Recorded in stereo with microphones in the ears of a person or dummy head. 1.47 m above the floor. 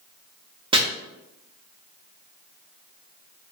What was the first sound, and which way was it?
Chopping, 25° right (ahead or behind).